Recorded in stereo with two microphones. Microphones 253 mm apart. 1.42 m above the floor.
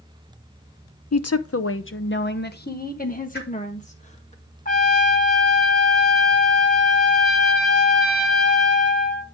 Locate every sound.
1.1 s a woman speaking: 75° left (ahead or behind), 0.6 m; by 4.3 s 25° left (ahead or behind), 2 m
3.3 s a whoosh: 40° left (ahead or behind), 2 m
4.7 s a trumpet: 30° left (ahead or behind), 3 m